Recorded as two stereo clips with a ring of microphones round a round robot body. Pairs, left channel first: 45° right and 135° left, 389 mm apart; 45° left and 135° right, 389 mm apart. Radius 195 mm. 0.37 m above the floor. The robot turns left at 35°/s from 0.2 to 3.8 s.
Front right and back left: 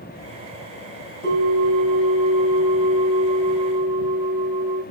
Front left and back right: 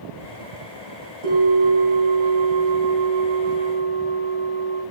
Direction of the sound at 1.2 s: 160° right.